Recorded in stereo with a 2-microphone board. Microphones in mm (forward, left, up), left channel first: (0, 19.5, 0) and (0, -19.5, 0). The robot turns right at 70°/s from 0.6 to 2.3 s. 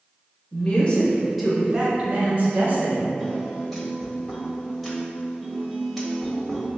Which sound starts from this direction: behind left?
A woman speaking, at 0.5 s.